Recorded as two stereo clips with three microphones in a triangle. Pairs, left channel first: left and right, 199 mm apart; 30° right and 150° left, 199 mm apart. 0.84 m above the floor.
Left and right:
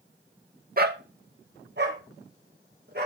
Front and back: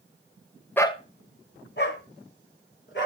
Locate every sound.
0.8 s a dog barking: 110° right, 0.7 m; by 3.1 s 50° right, 4 m